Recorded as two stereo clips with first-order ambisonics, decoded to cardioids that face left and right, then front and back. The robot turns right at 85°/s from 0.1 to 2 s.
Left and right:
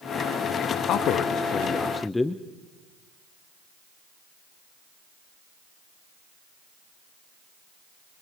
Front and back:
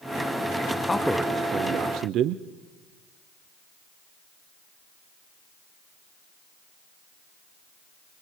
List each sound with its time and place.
0.8 s a man speaking: 70° left, 0.5 m; by 2.4 s 170° left, 0.5 m